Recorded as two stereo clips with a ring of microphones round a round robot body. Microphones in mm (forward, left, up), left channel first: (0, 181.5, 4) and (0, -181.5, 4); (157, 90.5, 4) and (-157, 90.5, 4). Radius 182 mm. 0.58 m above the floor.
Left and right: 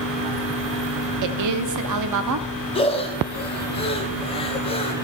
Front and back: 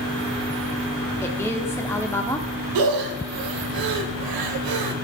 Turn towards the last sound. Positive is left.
turn(degrees=165)